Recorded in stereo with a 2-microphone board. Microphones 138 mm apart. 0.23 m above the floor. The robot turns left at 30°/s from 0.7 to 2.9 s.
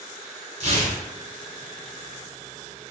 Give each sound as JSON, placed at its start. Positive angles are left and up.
{"t": 0.6, "sound": "tearing paper", "side_deg": -55, "distance_m": 1.1}